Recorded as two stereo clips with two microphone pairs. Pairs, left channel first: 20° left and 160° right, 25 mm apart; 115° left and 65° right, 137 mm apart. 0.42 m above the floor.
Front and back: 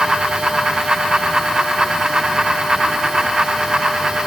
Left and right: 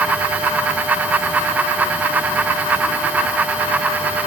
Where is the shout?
No shout in this recording.